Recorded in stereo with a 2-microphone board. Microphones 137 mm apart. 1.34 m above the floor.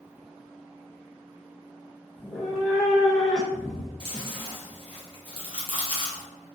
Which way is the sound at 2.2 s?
Centre (ahead or behind).